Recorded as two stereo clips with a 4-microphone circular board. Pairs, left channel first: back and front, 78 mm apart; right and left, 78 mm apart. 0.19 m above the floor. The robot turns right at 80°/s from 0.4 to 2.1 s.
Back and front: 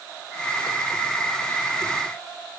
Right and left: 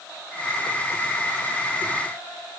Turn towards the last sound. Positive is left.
No sound to turn to.